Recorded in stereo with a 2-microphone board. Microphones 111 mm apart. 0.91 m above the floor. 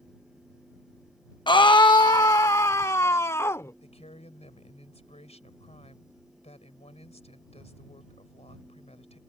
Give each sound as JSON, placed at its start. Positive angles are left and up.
{"t": 1.5, "sound": "a scream", "side_deg": 45}
{"t": 3.8, "sound": "a woman speaking", "side_deg": 75}